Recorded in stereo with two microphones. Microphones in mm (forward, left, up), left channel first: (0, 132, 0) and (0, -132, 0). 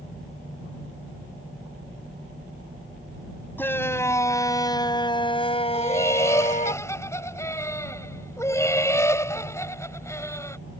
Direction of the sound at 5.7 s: 10° left (ahead or behind).